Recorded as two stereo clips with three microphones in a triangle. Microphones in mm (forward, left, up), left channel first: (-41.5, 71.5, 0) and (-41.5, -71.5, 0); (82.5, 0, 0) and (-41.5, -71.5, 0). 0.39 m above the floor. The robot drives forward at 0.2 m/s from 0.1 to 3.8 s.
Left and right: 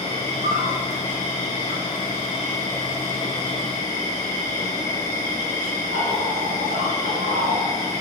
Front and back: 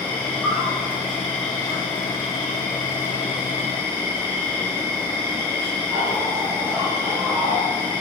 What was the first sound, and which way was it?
An insect, 55° right.